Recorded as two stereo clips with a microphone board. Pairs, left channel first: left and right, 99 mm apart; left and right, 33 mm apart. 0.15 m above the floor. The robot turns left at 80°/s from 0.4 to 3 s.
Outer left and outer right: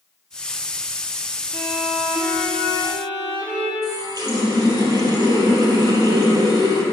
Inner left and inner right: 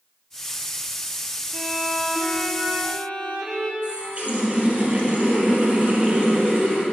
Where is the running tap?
40° right (ahead or behind), 2.5 m.